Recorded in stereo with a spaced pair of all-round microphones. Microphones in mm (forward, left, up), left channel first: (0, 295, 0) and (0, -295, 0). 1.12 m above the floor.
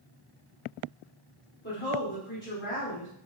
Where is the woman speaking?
50° left (ahead or behind), 2 m.